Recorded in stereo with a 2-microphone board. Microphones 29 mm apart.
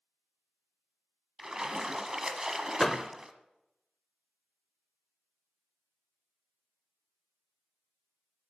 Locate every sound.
1.4 s a splash: 20° right (ahead or behind), 1.1 m
2.8 s a door slam: 10° left (ahead or behind), 0.9 m